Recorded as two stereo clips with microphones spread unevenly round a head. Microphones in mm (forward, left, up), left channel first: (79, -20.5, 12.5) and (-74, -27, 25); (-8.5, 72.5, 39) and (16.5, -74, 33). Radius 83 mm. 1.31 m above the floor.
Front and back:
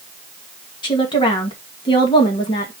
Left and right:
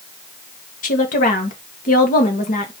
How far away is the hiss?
I don't hear a hiss.